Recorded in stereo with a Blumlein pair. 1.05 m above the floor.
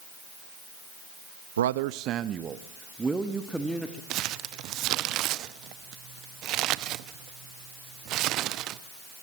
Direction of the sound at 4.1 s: 35° right.